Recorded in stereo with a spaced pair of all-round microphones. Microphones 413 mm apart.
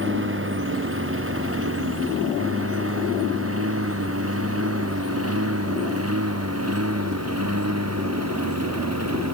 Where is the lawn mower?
30° right (ahead or behind); by 9.3 s 35° right (ahead or behind).